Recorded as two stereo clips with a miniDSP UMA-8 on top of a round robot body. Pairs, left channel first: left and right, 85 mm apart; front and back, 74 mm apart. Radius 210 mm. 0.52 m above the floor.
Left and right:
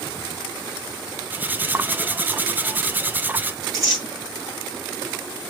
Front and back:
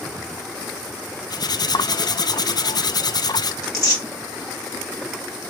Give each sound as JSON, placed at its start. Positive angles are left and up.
{"t": 1.3, "sound": "cutlery clinking", "azimuth_deg": -20, "distance_m": 0.5}
{"t": 3.6, "sound": "tearing paper", "azimuth_deg": -40, "distance_m": 1.7}